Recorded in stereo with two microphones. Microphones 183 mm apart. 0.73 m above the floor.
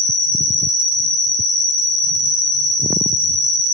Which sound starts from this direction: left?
An insect, at 0.0 s.